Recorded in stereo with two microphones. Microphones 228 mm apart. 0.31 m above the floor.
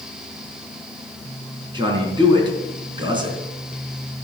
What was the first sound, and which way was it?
A man speaking, 20° right (ahead or behind).